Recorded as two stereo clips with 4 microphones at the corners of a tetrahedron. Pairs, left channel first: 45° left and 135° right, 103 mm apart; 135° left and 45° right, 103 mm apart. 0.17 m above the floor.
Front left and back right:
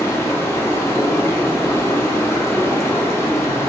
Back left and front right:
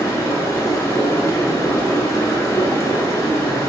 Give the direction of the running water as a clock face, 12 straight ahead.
9 o'clock.